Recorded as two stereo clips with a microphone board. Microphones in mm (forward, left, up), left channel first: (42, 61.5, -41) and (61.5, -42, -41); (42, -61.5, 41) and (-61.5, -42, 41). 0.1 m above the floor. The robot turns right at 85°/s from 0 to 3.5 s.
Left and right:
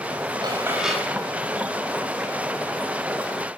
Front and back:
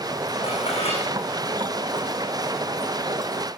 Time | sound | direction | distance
0.4 | dishes clattering | 35° right | 7.5 m